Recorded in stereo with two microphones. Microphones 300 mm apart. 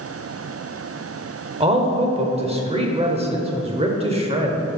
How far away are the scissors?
No scissors in this recording.